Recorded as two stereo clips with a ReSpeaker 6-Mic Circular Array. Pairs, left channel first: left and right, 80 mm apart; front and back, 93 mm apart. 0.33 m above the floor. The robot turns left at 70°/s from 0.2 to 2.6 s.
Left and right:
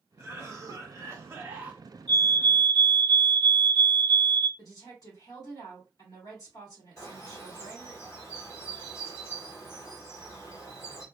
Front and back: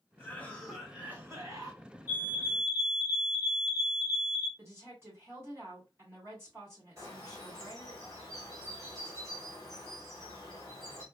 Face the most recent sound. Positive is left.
turn(degrees=135)